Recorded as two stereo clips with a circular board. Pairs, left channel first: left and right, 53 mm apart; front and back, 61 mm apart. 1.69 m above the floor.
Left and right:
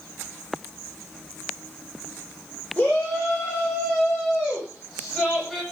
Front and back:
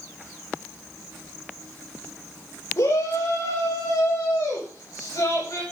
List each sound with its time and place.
2.8 s a shout: 15° left, 6 m; by 5.6 s 5° right, 10 m